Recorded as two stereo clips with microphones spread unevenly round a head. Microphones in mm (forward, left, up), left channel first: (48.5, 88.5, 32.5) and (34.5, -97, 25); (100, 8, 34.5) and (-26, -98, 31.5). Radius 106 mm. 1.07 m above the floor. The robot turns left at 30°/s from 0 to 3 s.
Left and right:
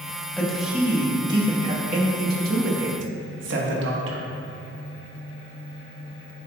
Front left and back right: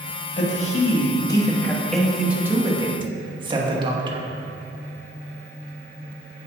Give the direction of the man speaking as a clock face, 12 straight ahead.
12 o'clock.